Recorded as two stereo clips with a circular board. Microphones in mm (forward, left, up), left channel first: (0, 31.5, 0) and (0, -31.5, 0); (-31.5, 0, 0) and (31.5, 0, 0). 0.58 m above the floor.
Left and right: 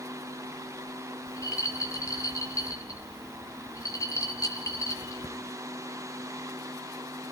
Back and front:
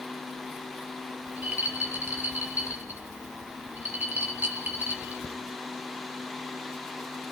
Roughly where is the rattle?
Ahead left.